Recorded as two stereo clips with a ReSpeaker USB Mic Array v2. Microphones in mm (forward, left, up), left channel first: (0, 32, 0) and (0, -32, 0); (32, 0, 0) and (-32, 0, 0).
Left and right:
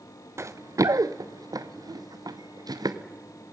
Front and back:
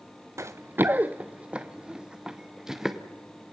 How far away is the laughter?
No laughter in this recording.